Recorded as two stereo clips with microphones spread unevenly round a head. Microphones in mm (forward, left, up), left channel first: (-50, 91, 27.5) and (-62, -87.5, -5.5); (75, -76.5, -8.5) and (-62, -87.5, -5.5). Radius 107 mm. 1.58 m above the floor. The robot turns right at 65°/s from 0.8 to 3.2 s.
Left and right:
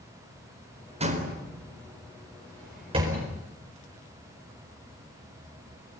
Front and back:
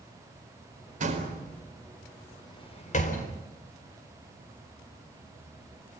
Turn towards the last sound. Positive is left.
turn(degrees=-10)